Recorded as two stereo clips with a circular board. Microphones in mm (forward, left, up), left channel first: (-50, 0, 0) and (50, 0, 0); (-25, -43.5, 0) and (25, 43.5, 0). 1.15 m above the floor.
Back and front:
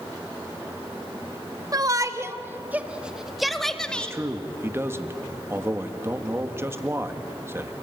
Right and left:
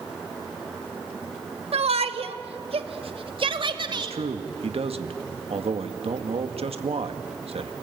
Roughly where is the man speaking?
Ahead left.